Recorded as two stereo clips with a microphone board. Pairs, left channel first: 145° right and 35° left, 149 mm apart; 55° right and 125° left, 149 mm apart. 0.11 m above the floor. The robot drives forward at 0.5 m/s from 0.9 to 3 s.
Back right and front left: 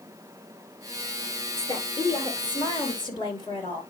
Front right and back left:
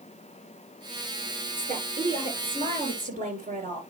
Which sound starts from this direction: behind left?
A woman speaking, at 1.6 s.